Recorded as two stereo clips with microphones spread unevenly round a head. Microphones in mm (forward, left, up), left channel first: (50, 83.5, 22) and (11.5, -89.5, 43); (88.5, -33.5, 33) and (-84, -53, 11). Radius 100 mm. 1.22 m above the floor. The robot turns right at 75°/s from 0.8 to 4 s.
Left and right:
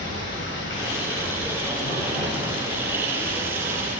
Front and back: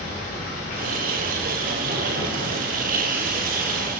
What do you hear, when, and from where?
0.0 s running water: 55° left, 4 m; by 4.0 s 65° right, 4 m